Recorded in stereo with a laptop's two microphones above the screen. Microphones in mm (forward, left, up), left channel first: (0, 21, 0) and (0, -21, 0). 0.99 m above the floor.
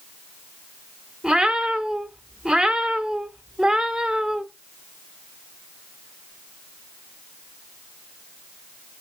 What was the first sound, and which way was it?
A cat meowing, 20° right (ahead or behind).